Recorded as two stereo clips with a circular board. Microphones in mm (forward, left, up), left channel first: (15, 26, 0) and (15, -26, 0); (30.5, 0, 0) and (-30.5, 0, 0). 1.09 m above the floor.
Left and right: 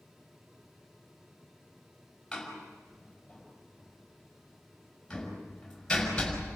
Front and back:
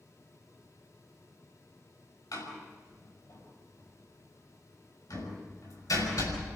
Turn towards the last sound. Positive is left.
turn(degrees=10)